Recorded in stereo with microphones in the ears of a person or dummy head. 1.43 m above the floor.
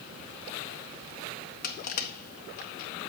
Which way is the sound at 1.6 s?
50° left (ahead or behind).